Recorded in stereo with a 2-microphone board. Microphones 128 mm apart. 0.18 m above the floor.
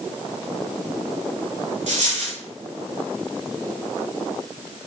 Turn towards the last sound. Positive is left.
turn(degrees=-65)  # may be behind; listen again after turning